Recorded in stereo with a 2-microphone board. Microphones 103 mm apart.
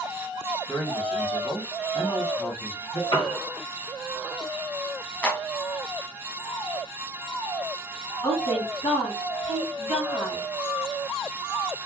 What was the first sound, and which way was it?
A man speaking, 60° left (ahead or behind).